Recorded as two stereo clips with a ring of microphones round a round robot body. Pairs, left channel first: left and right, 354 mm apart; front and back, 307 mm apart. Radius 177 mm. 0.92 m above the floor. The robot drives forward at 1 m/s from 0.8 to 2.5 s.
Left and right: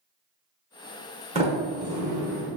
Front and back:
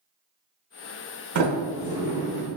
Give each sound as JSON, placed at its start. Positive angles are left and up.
{"t": 1.4, "sound": "a sliding door", "azimuth_deg": -160, "distance_m": 0.8}